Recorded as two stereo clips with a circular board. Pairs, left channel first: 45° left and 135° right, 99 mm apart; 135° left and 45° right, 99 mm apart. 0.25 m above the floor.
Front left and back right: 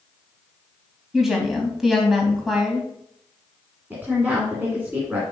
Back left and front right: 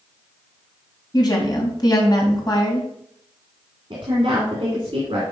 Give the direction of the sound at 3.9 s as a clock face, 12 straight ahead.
2 o'clock.